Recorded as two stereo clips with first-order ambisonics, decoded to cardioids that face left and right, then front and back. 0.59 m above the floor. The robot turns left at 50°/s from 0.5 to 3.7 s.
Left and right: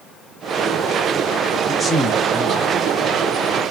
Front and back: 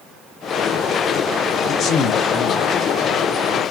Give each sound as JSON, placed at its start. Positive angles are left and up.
{"t": 1.7, "sound": "a man speaking", "azimuth_deg": 25, "distance_m": 0.6}